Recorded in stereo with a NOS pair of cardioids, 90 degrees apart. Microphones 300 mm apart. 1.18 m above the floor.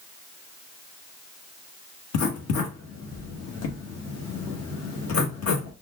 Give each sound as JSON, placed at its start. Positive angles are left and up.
{"t": 2.1, "sound": "writing", "azimuth_deg": 55, "distance_m": 1.2}